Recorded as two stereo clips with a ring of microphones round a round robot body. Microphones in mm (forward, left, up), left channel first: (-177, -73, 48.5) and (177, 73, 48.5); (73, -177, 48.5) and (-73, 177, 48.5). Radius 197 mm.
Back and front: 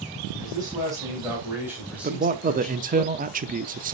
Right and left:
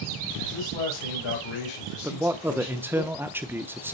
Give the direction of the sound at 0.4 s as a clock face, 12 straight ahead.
2 o'clock.